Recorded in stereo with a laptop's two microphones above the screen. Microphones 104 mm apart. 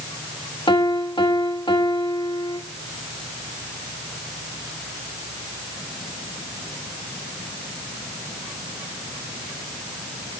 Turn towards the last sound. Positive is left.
turn(degrees=50)  # may be behind; listen again after turning